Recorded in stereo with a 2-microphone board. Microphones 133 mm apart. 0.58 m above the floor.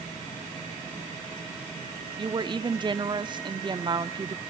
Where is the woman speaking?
35° right (ahead or behind), 0.8 m.